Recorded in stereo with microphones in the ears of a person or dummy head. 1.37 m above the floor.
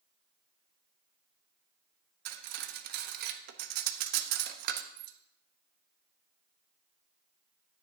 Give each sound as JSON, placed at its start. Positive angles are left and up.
{"t": 2.2, "sound": "cutlery clinking", "side_deg": -55, "distance_m": 1.0}